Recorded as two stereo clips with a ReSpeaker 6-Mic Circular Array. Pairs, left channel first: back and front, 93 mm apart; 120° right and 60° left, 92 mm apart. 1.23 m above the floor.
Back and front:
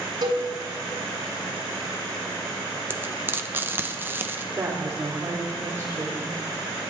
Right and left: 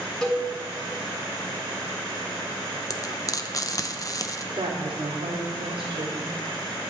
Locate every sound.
0.2 s a cowbell: 30° right, 3 m
2.9 s frying: 70° right, 0.8 m
4.5 s a woman speaking: 55° left, 3 m